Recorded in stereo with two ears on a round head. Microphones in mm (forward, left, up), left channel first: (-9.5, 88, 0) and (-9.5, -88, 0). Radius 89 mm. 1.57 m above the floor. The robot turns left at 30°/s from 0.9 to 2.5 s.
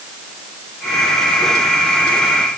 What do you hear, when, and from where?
Only background noise.